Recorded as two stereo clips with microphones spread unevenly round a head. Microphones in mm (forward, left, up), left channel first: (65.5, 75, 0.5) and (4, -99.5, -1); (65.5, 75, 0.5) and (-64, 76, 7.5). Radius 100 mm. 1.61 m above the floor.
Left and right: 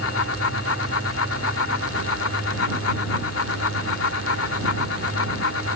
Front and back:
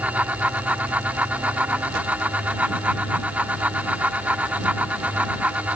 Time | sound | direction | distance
0.0 | a fan | 100° left | ?